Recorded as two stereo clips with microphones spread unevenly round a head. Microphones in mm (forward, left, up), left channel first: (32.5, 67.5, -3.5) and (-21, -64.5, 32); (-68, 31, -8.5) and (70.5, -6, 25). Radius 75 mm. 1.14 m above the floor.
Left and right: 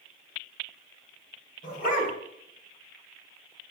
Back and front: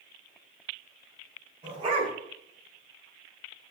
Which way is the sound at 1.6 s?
35° left.